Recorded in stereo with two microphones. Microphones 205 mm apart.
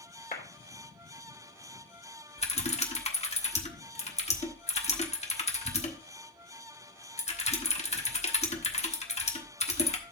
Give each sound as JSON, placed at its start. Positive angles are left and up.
{"t": 0.3, "sound": "a clap", "side_deg": 45, "distance_m": 2.5}
{"t": 2.4, "sound": "typing on a keyboard", "side_deg": 30, "distance_m": 1.3}